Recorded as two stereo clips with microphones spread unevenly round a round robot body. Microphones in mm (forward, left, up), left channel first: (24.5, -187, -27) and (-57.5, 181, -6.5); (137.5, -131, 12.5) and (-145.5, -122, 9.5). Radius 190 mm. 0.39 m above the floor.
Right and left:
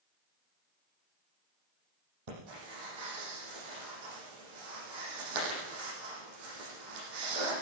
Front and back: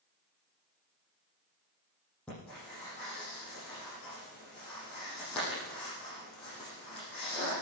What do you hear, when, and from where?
2.3 s breathing: 85° left, 8.5 m